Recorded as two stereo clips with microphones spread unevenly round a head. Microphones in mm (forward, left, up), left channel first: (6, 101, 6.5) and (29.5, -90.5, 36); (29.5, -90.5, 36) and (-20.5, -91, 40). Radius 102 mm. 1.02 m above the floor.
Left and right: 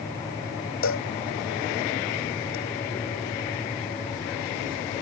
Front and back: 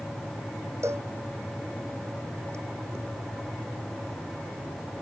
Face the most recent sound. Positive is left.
turn(degrees=120)